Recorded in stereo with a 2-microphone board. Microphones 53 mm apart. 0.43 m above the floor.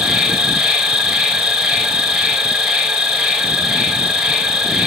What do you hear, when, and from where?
0.0 s an insect: 10° right (ahead or behind), 0.9 m